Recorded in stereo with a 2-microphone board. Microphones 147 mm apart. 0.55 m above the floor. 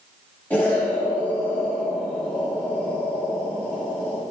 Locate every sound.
0.5 s an explosion: 10° left (ahead or behind), 1.8 m